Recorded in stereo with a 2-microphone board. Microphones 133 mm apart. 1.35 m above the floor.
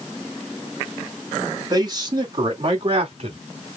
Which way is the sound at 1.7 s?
30° right (ahead or behind).